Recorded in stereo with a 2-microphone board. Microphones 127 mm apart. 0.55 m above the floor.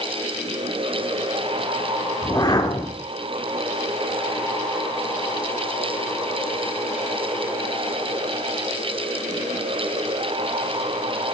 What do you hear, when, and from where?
2.2 s a whoosh: 30° left (ahead or behind), 1.2 m